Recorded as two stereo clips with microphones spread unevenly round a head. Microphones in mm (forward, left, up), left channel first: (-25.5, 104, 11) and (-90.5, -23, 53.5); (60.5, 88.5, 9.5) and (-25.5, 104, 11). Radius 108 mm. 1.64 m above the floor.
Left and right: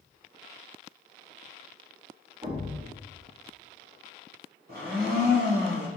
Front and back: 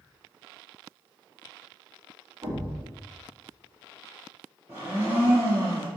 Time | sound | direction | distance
2.4 | a thud | 145° right | 1.4 m
4.7 | a blender | 120° right | 1.6 m